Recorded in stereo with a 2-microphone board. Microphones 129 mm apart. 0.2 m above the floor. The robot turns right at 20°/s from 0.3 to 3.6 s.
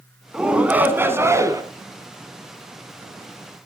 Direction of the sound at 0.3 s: 5° right (ahead or behind).